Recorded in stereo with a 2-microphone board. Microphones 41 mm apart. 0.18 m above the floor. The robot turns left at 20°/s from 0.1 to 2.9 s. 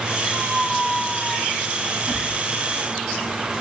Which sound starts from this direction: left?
A squeak, at 0.3 s.